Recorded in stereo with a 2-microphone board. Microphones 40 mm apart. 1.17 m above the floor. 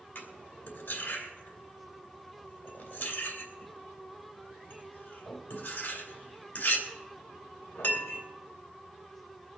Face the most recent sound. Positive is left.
turn(degrees=45)  # may be behind; listen again after turning